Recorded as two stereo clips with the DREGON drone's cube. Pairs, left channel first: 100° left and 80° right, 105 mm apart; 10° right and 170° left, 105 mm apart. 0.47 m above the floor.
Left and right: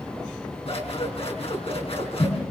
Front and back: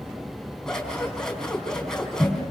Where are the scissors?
75° left, 4.5 m.